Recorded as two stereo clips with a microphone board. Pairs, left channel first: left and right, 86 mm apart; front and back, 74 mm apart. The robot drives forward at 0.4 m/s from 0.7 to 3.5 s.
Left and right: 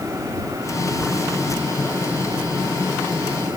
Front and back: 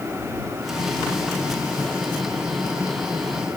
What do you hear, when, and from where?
Only background noise.